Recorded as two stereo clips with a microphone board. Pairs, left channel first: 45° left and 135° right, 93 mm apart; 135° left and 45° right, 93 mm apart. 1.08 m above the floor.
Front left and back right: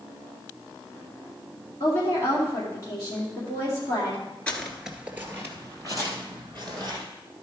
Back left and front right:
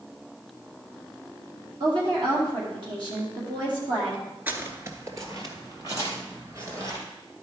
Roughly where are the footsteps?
Ahead.